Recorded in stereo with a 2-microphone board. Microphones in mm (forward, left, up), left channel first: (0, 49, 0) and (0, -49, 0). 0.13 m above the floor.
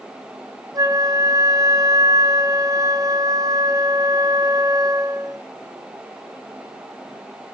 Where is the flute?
40° right (ahead or behind), 1.1 m.